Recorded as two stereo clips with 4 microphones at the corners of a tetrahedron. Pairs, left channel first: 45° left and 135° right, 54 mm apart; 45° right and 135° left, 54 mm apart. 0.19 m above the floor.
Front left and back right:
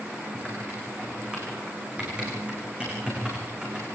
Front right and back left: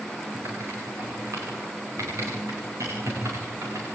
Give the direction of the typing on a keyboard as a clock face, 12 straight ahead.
7 o'clock.